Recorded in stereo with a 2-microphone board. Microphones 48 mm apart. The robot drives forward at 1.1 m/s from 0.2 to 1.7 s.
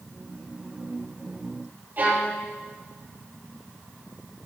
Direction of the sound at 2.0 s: 40° right (ahead or behind).